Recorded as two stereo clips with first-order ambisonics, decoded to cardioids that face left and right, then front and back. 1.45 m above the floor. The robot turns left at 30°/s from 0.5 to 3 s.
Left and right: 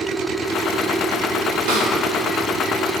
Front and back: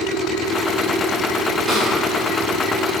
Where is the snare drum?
85° right, 3 m; by 1.9 s 90° right, 3 m.